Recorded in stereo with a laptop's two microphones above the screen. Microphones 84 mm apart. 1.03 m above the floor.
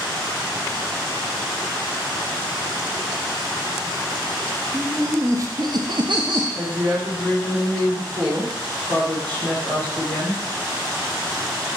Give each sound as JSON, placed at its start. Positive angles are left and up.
{"t": 4.7, "sound": "laughter", "side_deg": -30, "distance_m": 1.6}
{"t": 6.5, "sound": "a woman speaking", "side_deg": -65, "distance_m": 3.0}